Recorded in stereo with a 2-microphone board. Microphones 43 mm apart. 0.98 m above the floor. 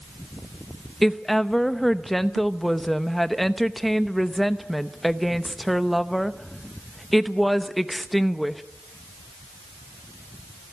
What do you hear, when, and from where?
1.0 s a woman speaking: 5° left (ahead or behind), 0.9 m